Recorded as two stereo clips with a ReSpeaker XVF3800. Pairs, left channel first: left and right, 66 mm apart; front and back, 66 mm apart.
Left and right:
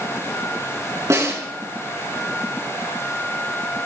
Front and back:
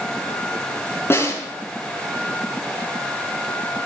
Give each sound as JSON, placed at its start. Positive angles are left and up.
{"t": 1.1, "sound": "a snare drum", "azimuth_deg": -50, "distance_m": 6.0}